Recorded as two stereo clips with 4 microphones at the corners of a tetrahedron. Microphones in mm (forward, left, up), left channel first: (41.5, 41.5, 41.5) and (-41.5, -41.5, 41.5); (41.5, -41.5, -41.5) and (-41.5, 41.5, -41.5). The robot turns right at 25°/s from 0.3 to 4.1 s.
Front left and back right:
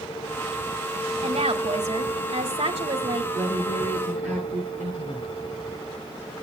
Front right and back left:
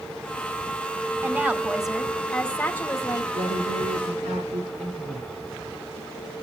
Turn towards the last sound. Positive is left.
turn(degrees=145)